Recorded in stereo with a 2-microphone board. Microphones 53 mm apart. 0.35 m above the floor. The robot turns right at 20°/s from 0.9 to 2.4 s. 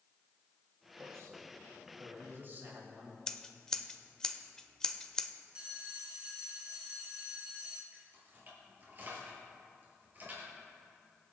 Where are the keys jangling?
40° right (ahead or behind), 4 m.